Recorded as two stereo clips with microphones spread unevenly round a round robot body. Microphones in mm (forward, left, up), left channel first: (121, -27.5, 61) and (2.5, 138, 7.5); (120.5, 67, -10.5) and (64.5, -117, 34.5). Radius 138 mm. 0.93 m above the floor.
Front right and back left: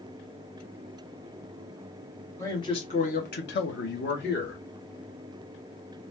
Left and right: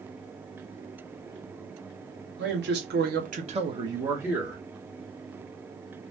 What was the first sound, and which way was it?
A man speaking, 140° right.